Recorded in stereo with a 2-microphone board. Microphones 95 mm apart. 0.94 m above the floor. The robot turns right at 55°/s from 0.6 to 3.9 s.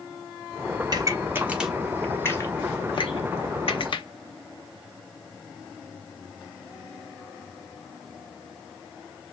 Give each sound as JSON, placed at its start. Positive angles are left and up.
{"t": 0.9, "sound": "a pop", "side_deg": -50, "distance_m": 1.0}